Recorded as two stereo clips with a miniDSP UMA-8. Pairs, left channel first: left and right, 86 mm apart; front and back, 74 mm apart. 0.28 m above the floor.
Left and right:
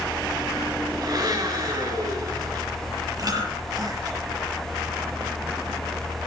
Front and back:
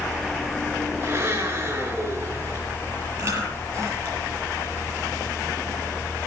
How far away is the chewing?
About 6.5 m.